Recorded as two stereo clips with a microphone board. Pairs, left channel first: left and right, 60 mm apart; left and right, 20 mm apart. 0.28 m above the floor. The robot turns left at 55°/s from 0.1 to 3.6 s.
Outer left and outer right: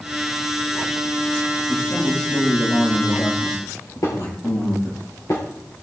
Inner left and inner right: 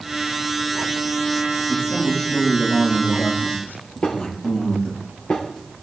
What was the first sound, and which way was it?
A man speaking, 165° right.